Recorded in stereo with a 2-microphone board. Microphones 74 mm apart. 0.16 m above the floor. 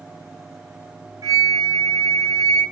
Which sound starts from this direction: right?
A flute, at 1.2 s.